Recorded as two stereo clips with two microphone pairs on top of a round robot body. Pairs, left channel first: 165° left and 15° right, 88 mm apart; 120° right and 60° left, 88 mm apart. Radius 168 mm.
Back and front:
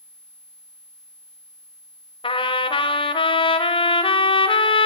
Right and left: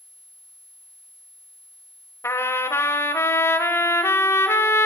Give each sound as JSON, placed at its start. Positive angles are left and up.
{"t": 2.2, "sound": "a trumpet", "azimuth_deg": 180, "distance_m": 1.2}